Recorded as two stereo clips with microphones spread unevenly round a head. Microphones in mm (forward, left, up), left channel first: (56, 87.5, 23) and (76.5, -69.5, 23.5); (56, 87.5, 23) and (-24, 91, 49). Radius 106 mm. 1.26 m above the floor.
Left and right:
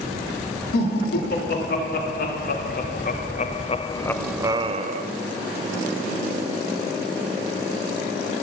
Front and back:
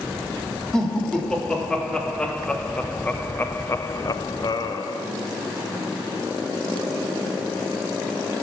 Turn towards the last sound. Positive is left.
turn(degrees=-50)